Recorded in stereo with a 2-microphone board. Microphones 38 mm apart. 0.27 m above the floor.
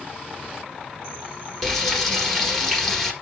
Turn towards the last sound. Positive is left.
turn(degrees=10)  # may be behind; listen again after turning